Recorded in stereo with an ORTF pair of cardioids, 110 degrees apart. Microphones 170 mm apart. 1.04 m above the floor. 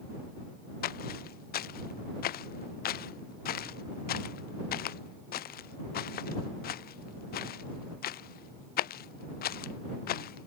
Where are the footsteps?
65° left.